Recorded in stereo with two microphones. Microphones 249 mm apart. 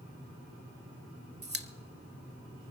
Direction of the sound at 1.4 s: 40° right (ahead or behind).